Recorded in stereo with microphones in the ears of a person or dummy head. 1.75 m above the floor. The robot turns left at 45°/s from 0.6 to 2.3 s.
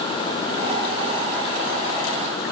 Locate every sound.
Only background noise.